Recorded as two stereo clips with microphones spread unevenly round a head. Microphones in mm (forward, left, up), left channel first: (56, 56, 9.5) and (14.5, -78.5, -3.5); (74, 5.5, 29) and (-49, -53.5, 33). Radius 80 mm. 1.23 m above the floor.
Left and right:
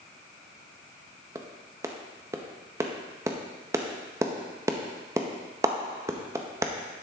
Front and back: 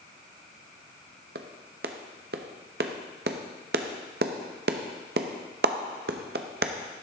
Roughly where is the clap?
Behind.